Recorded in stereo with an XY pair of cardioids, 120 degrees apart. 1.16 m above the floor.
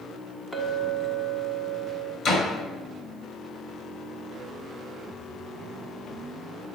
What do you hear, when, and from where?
0.5 s a clink: 10° left, 1.5 m
2.2 s a door slam: 50° left, 2.5 m